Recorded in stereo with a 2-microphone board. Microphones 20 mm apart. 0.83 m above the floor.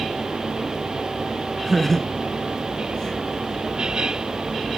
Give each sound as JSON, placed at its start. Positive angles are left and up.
{"t": 1.6, "sound": "laughter", "side_deg": 10, "distance_m": 1.1}